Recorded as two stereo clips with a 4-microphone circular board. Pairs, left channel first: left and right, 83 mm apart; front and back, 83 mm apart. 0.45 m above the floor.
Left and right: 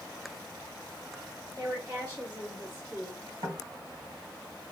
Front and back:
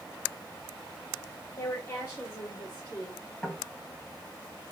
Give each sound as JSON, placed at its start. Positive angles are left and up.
{"t": 1.6, "sound": "a woman speaking", "azimuth_deg": -30, "distance_m": 3.0}
{"t": 3.4, "sound": "knocking", "azimuth_deg": -75, "distance_m": 1.6}